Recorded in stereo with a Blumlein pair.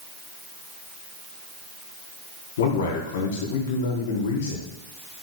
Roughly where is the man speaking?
Ahead left.